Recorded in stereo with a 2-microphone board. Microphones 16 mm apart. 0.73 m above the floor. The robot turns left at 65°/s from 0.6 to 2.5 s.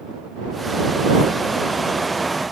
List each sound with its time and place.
Only background noise.